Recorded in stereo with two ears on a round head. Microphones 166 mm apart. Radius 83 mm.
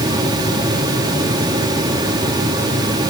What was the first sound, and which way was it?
Only background noise.